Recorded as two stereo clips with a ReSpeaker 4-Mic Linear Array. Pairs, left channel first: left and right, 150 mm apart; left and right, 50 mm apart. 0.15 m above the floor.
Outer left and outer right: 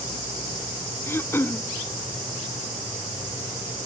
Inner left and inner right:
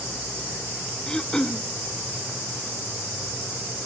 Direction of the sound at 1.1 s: 15° left (ahead or behind).